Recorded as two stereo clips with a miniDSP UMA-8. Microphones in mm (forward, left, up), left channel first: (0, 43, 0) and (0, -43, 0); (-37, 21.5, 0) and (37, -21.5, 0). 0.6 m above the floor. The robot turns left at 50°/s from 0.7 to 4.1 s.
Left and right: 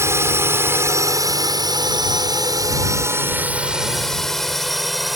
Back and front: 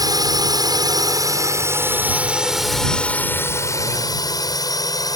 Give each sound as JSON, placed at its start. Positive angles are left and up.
{"t": 0.0, "sound": "a drone", "azimuth_deg": -40}